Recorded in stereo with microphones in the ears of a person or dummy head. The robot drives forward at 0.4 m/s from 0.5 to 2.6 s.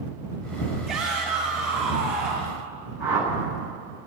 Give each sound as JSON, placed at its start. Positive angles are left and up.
{"t": 0.9, "sound": "a shout", "side_deg": -5, "distance_m": 6.5}
{"t": 3.0, "sound": "a whoosh", "side_deg": -10, "distance_m": 5.5}